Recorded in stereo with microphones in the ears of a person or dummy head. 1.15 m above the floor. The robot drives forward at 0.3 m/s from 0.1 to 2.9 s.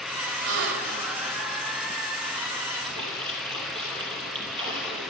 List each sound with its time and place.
0.4 s a gasp: 60° right (ahead or behind), 1.5 m
2.8 s a splash: 25° right (ahead or behind), 4.5 m